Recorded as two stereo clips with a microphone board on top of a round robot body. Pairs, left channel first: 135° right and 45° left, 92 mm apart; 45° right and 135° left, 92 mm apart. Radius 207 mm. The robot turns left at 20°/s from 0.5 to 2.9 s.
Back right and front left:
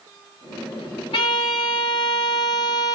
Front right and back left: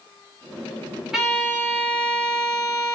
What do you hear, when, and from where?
1.1 s a violin: 140° right, 2.5 m; by 3.0 s 175° right, 2.5 m